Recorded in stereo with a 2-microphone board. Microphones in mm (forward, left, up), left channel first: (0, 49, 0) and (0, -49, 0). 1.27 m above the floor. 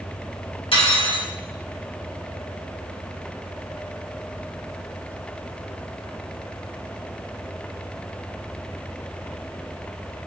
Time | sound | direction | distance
0.7 | cutlery clinking | 65° left (ahead or behind) | 1.3 m